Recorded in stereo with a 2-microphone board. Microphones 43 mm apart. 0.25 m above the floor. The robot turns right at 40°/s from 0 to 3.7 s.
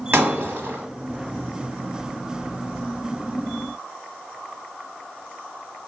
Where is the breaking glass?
55° right (ahead or behind), 1.0 m; by 0.8 s 45° right (ahead or behind), 1.0 m.